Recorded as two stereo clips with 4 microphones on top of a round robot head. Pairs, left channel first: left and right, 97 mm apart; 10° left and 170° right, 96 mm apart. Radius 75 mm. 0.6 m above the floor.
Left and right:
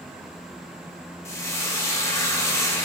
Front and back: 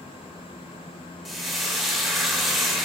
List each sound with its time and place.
1.2 s frying: 100° left, 0.6 m